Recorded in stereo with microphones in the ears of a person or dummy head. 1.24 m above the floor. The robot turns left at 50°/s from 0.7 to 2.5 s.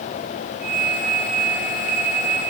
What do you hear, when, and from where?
Only background noise.